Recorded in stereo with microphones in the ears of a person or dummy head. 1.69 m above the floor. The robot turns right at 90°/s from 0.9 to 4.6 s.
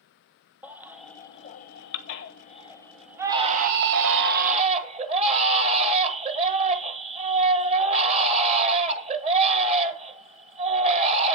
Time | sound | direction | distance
0.6 | a baby crying | 10° right | 1.2 m